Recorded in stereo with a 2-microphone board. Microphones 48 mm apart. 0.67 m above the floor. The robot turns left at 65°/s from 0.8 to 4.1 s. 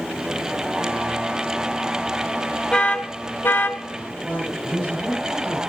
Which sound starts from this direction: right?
A man speaking, at 4.2 s.